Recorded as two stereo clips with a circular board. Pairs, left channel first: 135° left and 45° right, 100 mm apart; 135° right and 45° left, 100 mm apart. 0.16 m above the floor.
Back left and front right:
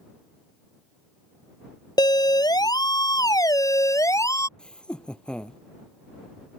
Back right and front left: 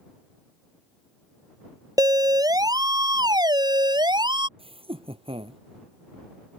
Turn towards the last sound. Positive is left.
turn(degrees=55)